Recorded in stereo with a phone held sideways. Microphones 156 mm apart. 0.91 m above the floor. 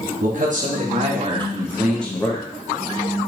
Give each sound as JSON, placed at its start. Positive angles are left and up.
{"t": 0.2, "sound": "a man speaking", "side_deg": -60, "distance_m": 1.6}